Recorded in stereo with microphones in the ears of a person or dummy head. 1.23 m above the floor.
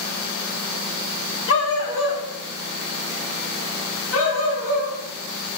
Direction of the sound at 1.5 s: 70° left (ahead or behind).